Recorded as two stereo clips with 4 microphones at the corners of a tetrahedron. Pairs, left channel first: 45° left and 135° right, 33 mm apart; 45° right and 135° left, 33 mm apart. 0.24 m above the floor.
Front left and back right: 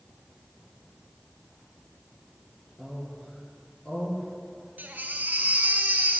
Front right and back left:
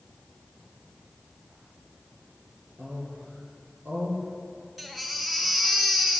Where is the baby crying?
140° right, 1.8 m.